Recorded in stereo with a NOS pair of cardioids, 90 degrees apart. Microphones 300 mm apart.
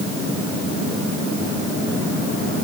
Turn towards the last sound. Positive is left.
No sound to turn to.